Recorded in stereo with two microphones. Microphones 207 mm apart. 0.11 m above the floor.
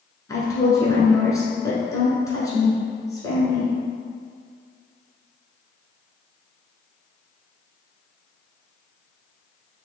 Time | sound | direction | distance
0.3 | a woman speaking | 15° left (ahead or behind) | 1.1 m